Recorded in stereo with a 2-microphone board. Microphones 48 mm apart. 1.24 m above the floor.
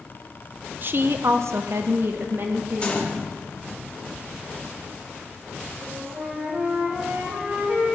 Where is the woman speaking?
45° right (ahead or behind), 0.8 m; by 3.2 s 40° right (ahead or behind), 1.8 m.